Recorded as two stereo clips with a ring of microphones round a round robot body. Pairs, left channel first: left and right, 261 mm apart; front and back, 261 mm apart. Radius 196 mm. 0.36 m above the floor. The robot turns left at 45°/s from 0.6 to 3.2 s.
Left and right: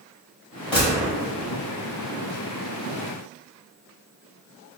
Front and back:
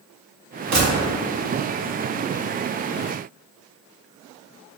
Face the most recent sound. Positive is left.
turn(degrees=65)